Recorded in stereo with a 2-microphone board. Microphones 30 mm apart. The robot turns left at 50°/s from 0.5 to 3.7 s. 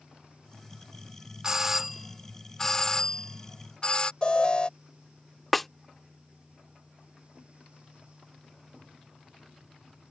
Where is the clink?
I don't hear a clink.